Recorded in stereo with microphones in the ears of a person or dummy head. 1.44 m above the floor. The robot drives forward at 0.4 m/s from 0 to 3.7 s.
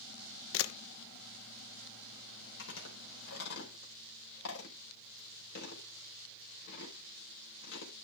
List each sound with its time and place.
0.5 s a camera shutter: 70° left (ahead or behind), 1.2 m; by 0.7 s 75° left (ahead or behind), 1.2 m
2.6 s chewing: 65° left (ahead or behind), 4.5 m; by 7.9 s 60° left (ahead or behind), 4.5 m